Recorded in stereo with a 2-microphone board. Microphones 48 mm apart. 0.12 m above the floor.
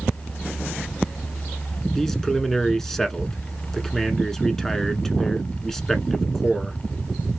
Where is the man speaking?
10° left (ahead or behind), 1.2 m.